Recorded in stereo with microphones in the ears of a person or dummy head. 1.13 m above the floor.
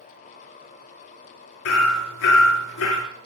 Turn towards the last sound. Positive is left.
turn(degrees=70)  # may be behind; listen again after turning